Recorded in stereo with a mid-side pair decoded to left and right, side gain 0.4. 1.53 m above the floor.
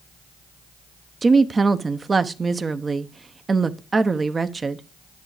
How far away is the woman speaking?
About 0.9 m.